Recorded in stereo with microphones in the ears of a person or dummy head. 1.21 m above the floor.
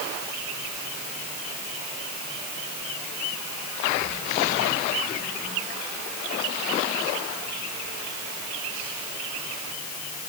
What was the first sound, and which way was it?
Only background noise.